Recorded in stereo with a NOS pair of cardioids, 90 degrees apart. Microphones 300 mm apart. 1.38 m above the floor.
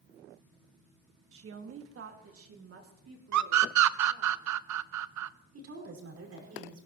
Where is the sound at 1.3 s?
45° right, 1.7 m; by 4.3 s 50° right, 4.5 m.